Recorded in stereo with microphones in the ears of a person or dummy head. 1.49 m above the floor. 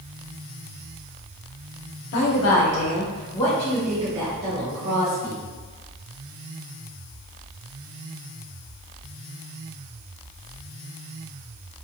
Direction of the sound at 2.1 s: 60° left (ahead or behind).